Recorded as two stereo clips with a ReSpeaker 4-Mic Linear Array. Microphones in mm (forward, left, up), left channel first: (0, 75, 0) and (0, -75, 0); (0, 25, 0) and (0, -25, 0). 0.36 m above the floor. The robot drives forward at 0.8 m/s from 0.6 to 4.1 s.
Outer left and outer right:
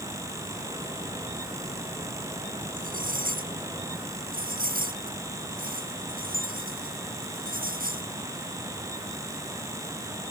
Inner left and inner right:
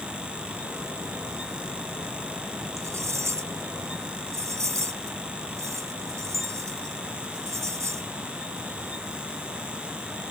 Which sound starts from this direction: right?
Cutlery clinking, at 2.8 s.